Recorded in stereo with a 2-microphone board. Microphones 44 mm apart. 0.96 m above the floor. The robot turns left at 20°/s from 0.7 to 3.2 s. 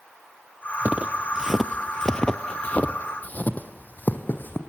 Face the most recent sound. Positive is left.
turn(degrees=45)  # may be behind; listen again after turning